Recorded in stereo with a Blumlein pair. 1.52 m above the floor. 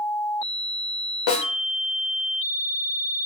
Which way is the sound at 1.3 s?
45° left.